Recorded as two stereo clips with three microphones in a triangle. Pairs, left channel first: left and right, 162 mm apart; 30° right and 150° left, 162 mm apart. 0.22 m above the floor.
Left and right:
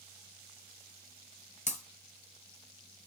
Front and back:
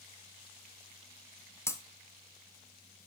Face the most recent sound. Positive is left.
turn(degrees=45)